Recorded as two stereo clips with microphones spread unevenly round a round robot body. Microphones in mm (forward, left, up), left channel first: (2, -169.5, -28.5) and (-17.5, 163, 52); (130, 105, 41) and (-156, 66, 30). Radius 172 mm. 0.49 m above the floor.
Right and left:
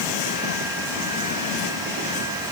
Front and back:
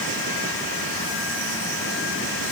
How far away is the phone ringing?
I don't hear a phone ringing.